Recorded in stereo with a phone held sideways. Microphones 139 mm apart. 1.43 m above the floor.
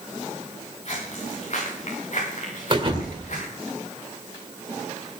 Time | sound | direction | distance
0.8 | footsteps | 50° left (ahead or behind) | 9.5 m
2.7 | a thud | 40° right (ahead or behind) | 2 m